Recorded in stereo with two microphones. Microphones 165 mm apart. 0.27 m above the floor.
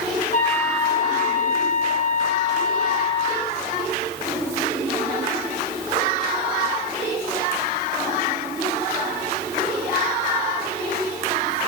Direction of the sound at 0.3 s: 50° left (ahead or behind).